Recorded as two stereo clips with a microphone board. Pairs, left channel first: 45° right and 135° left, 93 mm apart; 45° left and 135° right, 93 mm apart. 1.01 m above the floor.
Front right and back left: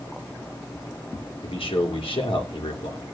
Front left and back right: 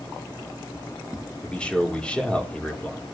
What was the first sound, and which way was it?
A man speaking, 35° right.